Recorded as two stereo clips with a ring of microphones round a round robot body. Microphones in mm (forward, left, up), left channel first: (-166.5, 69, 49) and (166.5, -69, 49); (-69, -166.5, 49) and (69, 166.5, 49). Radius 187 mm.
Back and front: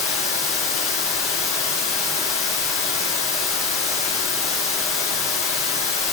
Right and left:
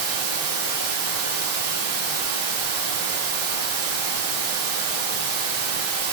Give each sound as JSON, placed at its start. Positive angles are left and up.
{"t": 0.0, "sound": "running water", "azimuth_deg": 100, "distance_m": 3.0}